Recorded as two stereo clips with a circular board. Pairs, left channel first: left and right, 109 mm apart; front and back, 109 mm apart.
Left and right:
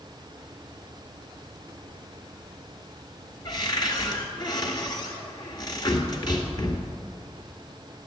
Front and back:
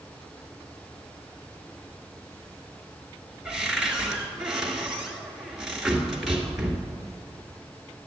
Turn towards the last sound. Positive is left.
turn(degrees=95)